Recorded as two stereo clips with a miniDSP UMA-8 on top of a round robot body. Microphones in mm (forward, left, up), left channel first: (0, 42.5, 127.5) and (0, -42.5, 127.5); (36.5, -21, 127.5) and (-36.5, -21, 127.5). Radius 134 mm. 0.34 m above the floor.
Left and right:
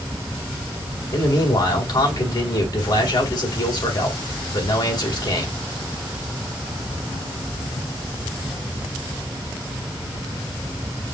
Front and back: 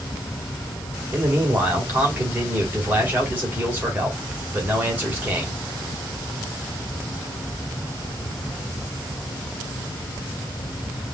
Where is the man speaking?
115° left, 2.5 m.